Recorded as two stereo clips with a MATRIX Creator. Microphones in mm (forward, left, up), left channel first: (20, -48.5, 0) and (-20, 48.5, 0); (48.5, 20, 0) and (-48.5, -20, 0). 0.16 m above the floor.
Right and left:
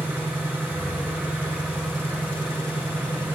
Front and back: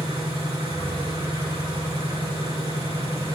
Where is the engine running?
175° right, 5.5 m.